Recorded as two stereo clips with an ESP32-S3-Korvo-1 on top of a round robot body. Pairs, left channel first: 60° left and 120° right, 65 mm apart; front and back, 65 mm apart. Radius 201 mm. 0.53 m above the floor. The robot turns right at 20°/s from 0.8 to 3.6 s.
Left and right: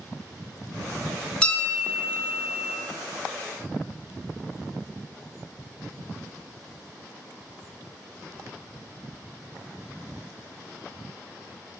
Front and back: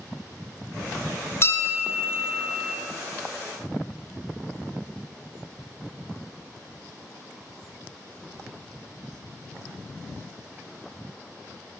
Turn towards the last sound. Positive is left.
turn(degrees=40)